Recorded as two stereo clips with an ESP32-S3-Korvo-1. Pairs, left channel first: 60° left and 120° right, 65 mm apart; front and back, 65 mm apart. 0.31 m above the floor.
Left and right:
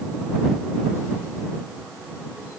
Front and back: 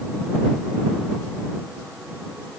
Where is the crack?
No crack in this recording.